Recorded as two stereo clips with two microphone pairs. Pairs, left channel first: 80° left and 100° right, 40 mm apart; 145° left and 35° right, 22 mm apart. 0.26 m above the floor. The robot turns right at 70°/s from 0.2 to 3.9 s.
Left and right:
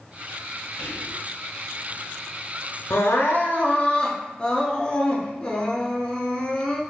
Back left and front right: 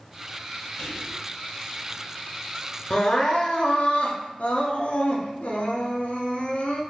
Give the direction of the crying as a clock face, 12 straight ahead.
9 o'clock.